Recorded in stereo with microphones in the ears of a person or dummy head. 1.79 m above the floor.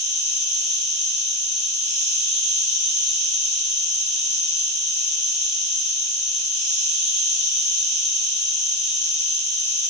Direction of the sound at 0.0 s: 5° right (ahead or behind).